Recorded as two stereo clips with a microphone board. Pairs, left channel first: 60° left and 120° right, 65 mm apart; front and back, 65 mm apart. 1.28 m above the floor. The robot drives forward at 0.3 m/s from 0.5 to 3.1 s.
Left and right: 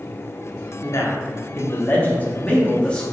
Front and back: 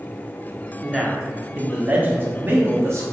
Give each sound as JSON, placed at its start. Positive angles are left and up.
{"t": 0.8, "sound": "a man speaking", "azimuth_deg": 90, "distance_m": 0.7}